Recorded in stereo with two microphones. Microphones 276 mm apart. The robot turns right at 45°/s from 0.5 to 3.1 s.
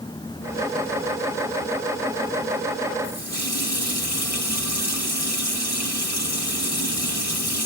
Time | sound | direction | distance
3.0 | a running tap | 70° left (ahead or behind) | 5 m